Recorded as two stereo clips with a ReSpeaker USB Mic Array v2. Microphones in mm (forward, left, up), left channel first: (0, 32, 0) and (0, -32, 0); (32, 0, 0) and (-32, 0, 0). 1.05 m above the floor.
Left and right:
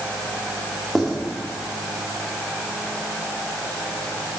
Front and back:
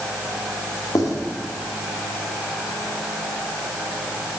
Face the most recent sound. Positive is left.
turn(degrees=0)